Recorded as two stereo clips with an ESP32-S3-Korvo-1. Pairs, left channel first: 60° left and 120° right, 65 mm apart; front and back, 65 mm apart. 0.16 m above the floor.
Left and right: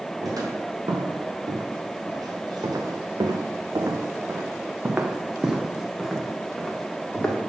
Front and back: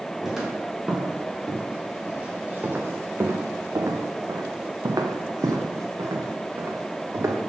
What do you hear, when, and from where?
0.2 s footsteps: 95° right, 2 m; by 7.4 s 135° left, 1.8 m